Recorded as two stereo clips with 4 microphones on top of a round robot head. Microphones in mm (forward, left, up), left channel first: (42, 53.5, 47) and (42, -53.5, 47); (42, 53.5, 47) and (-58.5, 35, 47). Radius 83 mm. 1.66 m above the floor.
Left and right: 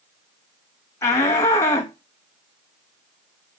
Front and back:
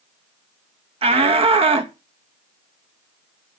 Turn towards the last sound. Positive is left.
turn(degrees=160)